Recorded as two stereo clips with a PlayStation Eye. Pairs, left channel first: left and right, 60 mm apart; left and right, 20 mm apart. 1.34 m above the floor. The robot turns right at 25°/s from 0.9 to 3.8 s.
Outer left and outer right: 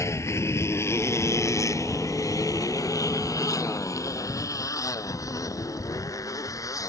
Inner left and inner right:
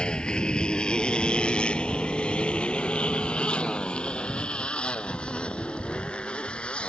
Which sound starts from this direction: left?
A motorcycle, at 0.0 s.